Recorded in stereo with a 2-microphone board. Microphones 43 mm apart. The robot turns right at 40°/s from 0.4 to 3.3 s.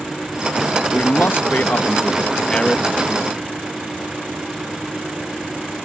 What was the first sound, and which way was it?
A man speaking, 85° left.